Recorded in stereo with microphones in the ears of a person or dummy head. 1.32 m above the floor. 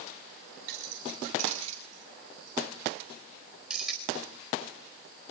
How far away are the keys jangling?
About 3 m.